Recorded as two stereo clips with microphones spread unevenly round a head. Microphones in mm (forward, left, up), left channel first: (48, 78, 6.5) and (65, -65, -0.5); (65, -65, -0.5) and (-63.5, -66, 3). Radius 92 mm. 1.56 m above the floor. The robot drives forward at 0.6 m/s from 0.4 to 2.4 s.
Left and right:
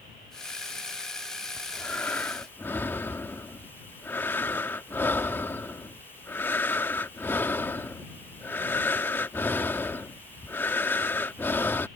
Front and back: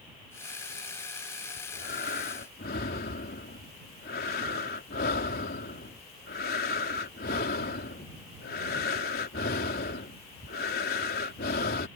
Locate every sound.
1.6 s breathing: 20° left